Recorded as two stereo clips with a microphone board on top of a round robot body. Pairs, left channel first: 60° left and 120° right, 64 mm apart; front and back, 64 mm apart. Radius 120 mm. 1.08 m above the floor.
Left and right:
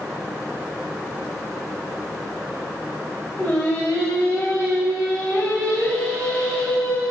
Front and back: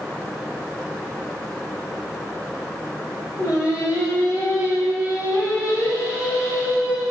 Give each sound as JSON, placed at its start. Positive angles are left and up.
{"t": 3.4, "sound": "singing", "azimuth_deg": -20, "distance_m": 3.5}